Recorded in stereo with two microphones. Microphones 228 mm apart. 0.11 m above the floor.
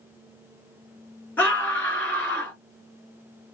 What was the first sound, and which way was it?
A scream, 10° left (ahead or behind).